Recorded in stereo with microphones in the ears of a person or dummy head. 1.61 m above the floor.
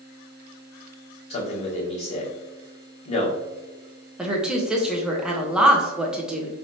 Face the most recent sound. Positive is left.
turn(degrees=-5)  # may be behind; listen again after turning